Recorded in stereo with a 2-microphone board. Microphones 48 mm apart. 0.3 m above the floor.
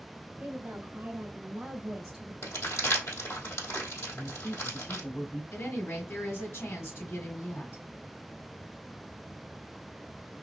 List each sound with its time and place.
0.4 s a woman speaking: 50° right (ahead or behind), 1.7 m; by 2.3 s 10° right (ahead or behind), 1.5 m
2.4 s crumpling: 75° left (ahead or behind), 3 m
4.1 s a man speaking: 55° left (ahead or behind), 2.0 m
5.5 s a woman speaking: 60° left (ahead or behind), 3 m